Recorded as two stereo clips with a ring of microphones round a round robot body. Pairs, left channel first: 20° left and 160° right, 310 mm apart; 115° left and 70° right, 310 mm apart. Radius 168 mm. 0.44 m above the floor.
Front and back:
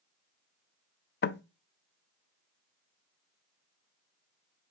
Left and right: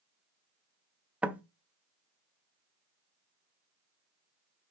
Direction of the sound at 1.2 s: 15° left.